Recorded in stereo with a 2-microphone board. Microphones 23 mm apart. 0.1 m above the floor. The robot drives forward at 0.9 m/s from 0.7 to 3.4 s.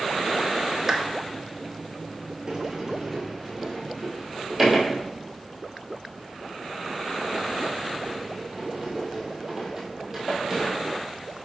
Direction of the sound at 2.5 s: 20° right (ahead or behind).